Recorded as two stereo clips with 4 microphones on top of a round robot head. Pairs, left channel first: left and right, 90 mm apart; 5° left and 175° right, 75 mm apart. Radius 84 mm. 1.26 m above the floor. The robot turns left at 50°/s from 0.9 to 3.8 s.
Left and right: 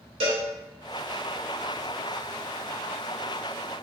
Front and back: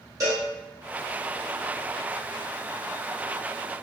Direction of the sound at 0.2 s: 120° right.